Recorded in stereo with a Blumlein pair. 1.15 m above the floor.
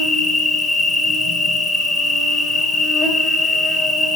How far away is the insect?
About 0.7 m.